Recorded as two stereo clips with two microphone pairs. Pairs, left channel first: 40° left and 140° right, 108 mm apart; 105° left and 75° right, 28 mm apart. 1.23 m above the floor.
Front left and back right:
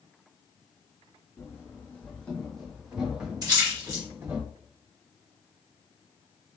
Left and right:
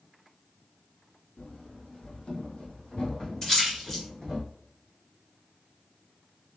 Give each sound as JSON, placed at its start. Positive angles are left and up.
{"t": 1.4, "sound": "running footsteps", "azimuth_deg": 95, "distance_m": 2.0}
{"t": 3.4, "sound": "a splash", "azimuth_deg": 170, "distance_m": 1.8}